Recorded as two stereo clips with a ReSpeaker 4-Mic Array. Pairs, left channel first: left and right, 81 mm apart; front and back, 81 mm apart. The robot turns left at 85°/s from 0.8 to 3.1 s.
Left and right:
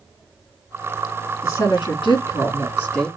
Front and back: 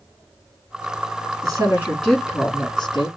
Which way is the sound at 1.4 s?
150° left.